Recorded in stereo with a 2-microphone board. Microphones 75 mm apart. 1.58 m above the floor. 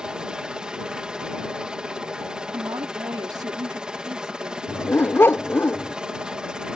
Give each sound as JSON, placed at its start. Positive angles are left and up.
{"t": 0.0, "sound": "a helicopter", "side_deg": -10}
{"t": 2.5, "sound": "a woman speaking", "side_deg": -60}
{"t": 4.7, "sound": "a dog barking", "side_deg": 30}